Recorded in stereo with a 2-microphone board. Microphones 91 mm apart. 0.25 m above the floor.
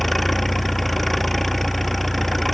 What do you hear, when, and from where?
0.0 s an engine running: centre (ahead or behind)